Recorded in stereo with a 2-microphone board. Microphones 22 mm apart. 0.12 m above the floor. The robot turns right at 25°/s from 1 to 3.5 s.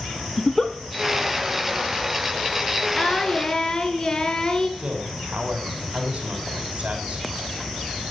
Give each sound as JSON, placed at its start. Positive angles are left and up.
{"t": 0.4, "sound": "a giggle", "side_deg": 20, "distance_m": 1.3}
{"t": 3.0, "sound": "singing", "side_deg": 35, "distance_m": 2.0}
{"t": 4.8, "sound": "a man speaking", "side_deg": -65, "distance_m": 5.0}